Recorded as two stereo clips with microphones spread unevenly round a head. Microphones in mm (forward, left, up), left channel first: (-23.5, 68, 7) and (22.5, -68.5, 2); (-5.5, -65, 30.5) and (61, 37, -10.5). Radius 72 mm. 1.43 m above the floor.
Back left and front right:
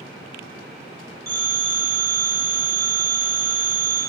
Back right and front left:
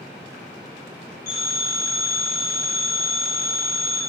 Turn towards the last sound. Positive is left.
turn(degrees=-140)